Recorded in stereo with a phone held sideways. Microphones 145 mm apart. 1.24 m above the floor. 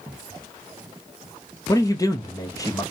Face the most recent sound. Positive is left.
turn(degrees=25)  # may be behind; listen again after turning